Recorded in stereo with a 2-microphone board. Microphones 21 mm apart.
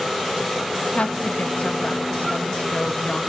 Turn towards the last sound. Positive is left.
turn(degrees=80)